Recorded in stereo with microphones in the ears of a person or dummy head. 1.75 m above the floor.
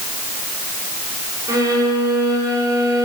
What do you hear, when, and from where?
1.5 s a violin: 25° right (ahead or behind), 4 m